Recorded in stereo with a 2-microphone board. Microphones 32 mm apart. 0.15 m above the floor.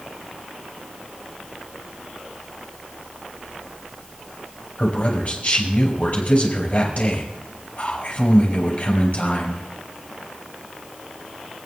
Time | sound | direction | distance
4.8 | a man speaking | 50° left (ahead or behind) | 5 m